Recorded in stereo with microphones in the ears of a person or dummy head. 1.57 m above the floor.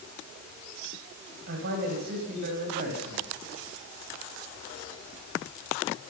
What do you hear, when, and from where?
1.5 s a man speaking: 65° right (ahead or behind), 7 m; by 3.3 s 60° right (ahead or behind), 8 m